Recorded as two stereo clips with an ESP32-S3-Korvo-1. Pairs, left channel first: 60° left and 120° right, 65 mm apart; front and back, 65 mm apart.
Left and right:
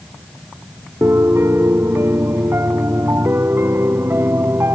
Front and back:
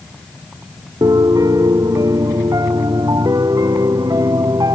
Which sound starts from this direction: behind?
A piano, at 1.0 s.